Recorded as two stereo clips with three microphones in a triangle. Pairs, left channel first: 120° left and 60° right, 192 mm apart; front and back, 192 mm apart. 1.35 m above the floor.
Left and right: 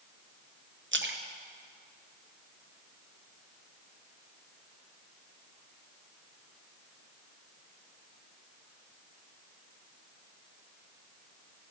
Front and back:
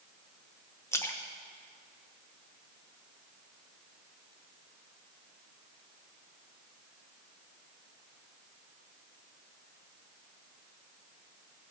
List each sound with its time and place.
0.9 s a splash: 75° right, 0.9 m